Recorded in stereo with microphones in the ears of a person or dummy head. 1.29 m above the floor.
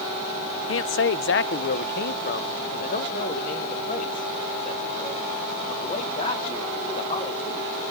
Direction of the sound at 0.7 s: 55° left (ahead or behind).